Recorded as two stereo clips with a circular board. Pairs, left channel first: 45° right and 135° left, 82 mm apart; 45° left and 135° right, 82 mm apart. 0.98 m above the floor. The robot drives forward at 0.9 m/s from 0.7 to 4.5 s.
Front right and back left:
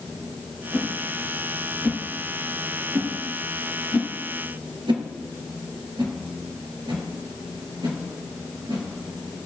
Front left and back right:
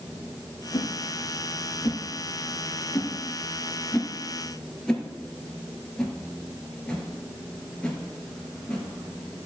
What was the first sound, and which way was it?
A whoosh, 45° left.